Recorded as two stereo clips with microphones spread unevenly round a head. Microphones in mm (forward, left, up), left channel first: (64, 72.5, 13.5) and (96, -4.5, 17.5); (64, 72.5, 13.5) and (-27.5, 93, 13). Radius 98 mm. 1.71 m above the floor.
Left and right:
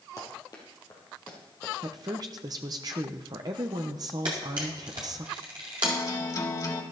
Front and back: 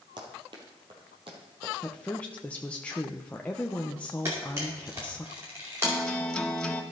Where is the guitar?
70° left, 1.9 m.